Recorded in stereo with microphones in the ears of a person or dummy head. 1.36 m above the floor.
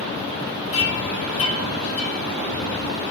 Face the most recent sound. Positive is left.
turn(degrees=35)  # may be behind; listen again after turning